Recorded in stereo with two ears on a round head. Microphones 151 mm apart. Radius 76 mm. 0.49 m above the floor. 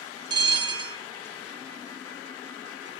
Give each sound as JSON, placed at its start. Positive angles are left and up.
{"t": 0.3, "sound": "a bell", "side_deg": -25, "distance_m": 0.6}